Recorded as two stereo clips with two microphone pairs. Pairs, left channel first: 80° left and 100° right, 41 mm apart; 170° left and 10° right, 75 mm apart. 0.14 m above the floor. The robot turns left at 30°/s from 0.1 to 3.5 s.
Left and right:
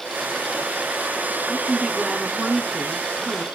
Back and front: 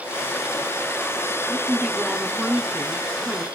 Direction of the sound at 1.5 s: 60° right.